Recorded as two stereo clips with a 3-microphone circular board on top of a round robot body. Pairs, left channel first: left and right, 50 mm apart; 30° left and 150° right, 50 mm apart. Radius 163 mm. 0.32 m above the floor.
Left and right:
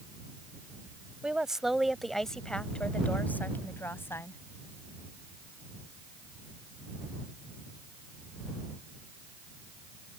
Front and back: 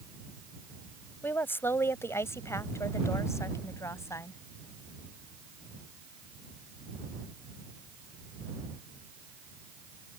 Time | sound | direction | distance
1.2 | a woman speaking | 15° right | ?